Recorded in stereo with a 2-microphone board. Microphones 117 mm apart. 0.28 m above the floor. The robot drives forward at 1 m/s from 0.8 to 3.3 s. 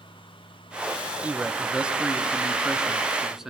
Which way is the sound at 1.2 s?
15° right (ahead or behind).